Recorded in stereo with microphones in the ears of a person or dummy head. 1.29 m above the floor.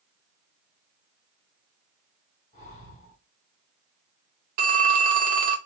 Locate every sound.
2.5 s breathing: 35° left (ahead or behind), 1.0 m
4.6 s a phone ringing: 45° right (ahead or behind), 0.7 m